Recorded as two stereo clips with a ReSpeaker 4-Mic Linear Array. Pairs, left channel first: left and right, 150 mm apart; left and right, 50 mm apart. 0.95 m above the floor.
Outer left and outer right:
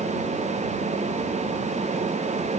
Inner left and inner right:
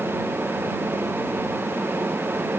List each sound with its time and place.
Only background noise.